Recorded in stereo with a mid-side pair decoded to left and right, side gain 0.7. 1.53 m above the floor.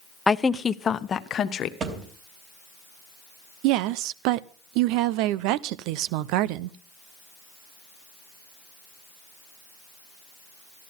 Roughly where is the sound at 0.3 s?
Ahead.